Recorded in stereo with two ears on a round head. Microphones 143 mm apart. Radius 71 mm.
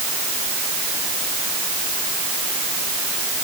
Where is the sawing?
I don't hear sawing.